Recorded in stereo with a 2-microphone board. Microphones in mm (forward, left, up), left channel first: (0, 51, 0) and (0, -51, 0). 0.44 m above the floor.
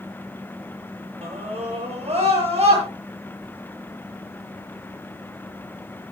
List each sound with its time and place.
1.2 s a scream: 85° right, 9.5 m